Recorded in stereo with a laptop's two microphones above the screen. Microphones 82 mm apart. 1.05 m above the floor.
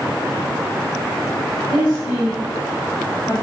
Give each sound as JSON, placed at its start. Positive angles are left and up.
{"t": 1.7, "sound": "a woman speaking", "side_deg": 65, "distance_m": 8.0}